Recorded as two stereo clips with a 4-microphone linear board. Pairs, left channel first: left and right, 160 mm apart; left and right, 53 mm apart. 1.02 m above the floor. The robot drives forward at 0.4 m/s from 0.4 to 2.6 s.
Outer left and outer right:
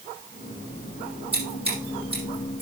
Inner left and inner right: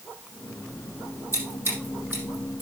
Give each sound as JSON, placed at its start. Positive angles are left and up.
{"t": 1.3, "sound": "scissors", "side_deg": -35, "distance_m": 7.0}